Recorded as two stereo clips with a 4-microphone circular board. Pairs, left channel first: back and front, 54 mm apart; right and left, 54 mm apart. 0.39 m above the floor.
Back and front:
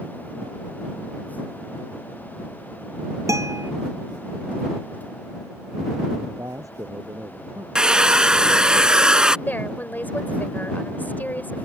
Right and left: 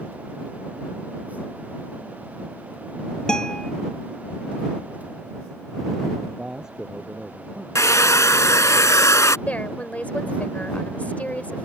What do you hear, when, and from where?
3.3 s a guitar: 15° right
6.2 s a man speaking: 10° left
7.8 s a hair dryer: 75° right
9.5 s a woman speaking: 145° right